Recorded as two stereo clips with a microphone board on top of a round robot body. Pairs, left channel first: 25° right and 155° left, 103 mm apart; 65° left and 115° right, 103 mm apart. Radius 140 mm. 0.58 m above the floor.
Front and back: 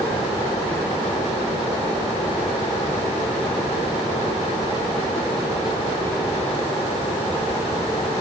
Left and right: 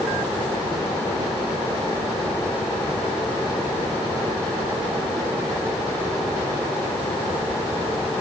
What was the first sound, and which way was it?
Only background noise.